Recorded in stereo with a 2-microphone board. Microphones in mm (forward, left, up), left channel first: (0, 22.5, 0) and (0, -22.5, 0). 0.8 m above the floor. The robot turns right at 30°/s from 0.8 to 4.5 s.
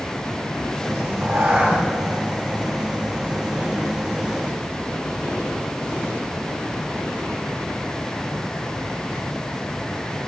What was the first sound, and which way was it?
A cat meowing, 65° right (ahead or behind).